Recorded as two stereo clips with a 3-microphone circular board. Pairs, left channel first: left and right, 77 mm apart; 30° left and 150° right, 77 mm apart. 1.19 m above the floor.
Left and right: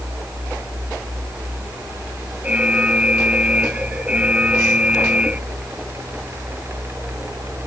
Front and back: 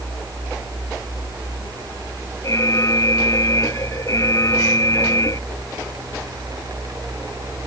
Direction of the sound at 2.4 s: 15° right.